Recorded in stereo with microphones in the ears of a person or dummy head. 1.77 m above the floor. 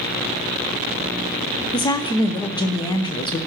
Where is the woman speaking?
25° left (ahead or behind), 0.7 m.